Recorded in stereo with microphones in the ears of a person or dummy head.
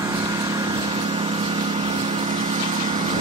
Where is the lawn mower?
20° right (ahead or behind); by 3.2 s 35° right (ahead or behind).